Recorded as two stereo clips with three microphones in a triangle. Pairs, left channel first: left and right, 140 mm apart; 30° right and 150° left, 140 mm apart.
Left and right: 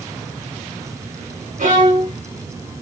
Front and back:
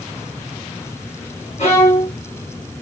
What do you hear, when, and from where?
1.6 s a violin: 65° right, 2.5 m